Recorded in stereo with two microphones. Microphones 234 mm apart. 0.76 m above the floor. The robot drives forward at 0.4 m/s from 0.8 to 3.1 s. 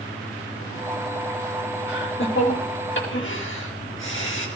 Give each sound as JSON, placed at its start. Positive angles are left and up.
{"t": 1.9, "sound": "laughter", "side_deg": 50, "distance_m": 4.5}